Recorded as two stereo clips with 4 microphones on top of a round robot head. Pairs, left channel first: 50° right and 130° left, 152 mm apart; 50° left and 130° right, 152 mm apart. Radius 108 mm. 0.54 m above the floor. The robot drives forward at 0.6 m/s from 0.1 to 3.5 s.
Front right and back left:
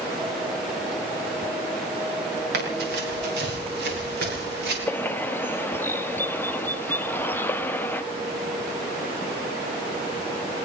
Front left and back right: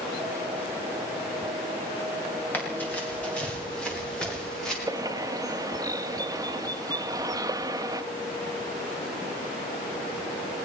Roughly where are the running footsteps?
Behind left.